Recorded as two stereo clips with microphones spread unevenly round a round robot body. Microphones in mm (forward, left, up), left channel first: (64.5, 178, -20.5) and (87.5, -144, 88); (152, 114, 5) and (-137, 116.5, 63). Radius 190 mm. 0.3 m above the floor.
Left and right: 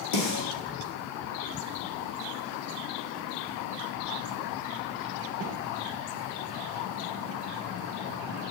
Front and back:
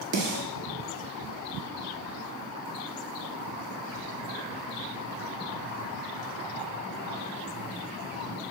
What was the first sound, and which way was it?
A snare drum, 135° left.